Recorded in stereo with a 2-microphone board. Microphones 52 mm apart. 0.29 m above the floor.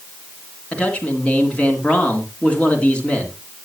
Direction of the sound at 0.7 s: 25° left (ahead or behind).